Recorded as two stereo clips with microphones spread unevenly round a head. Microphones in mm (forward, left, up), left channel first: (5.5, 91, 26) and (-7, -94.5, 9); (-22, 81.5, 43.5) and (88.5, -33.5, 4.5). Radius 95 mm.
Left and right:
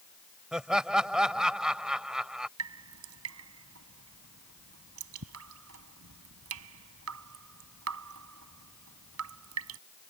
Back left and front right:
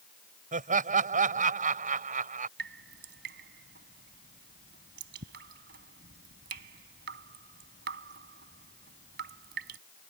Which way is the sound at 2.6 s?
85° right.